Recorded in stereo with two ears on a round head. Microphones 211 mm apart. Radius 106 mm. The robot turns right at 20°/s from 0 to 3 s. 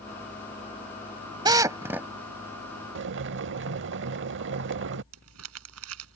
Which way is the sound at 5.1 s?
65° right (ahead or behind).